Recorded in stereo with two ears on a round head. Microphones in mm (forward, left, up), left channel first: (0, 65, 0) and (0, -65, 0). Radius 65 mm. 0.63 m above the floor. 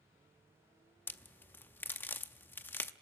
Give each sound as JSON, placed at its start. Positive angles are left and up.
{"t": 1.1, "sound": "a crack", "side_deg": 15, "distance_m": 0.6}